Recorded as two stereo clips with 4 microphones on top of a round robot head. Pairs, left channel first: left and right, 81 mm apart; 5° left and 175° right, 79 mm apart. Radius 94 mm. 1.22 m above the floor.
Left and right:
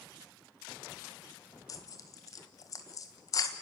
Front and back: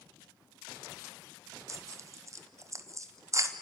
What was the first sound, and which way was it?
Tearing paper, 140° left.